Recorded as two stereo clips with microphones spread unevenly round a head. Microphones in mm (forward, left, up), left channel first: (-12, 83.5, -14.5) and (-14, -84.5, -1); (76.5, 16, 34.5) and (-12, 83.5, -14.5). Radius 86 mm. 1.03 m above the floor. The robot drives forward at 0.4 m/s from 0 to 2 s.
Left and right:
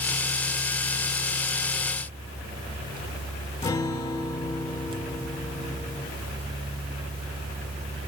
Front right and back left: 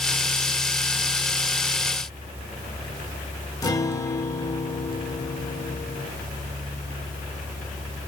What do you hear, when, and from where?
3.6 s a guitar: 15° left, 1.5 m